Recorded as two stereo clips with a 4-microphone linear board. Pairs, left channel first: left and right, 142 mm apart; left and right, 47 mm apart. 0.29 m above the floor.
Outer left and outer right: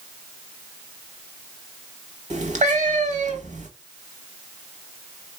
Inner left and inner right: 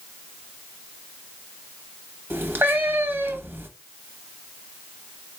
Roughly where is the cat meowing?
Right.